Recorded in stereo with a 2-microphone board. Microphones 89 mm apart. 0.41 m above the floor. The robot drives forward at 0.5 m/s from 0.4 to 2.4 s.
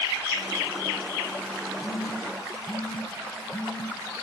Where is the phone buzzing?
20° left (ahead or behind), 2.5 m.